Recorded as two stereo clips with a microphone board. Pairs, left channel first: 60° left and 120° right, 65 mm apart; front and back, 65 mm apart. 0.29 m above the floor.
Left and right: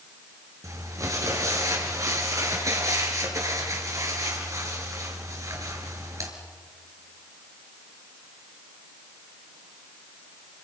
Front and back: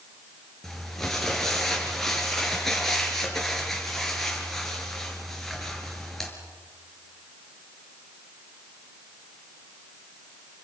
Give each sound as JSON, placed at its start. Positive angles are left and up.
{"t": 0.6, "sound": "crumpling", "azimuth_deg": -85, "distance_m": 5.0}